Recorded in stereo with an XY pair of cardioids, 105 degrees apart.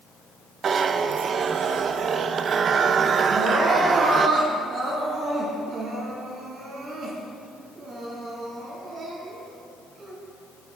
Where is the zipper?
50° right, 0.6 m.